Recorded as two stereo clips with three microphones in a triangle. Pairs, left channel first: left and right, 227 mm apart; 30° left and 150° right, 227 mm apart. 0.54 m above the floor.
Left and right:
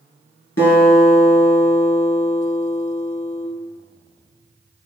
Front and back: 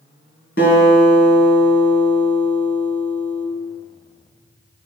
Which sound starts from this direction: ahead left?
A guitar, at 0.6 s.